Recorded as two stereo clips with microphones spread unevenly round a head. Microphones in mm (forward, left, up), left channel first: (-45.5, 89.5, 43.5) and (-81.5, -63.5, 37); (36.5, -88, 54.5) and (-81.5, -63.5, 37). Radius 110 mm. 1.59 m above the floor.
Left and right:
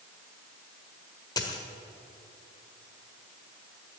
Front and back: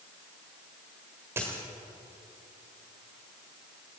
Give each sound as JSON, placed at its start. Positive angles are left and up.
{"t": 1.4, "sound": "a dropped coin", "azimuth_deg": 90, "distance_m": 1.4}